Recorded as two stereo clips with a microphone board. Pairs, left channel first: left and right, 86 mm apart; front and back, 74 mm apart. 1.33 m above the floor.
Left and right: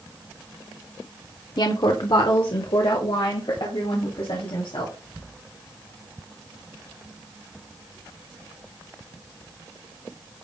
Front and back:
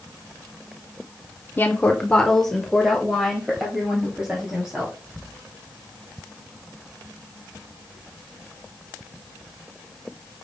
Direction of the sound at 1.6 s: 60° left.